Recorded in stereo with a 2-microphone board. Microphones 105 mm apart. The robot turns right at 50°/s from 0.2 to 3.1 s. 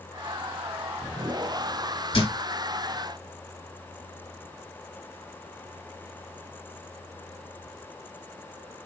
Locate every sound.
2.1 s a thud: 60° left (ahead or behind), 2.5 m; by 2.3 s 70° left (ahead or behind), 2.5 m